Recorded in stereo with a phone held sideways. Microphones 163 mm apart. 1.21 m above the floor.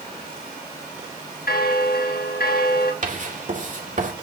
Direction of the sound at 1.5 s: 70° left (ahead or behind).